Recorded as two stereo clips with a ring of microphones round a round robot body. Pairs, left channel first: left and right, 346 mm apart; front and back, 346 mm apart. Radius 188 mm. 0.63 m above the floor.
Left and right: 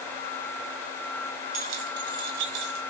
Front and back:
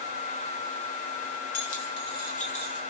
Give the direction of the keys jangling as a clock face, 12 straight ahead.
2 o'clock.